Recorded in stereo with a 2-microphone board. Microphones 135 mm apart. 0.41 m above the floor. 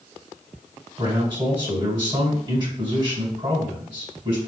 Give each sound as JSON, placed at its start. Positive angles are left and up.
{"t": 1.0, "sound": "a man speaking", "side_deg": -35, "distance_m": 1.8}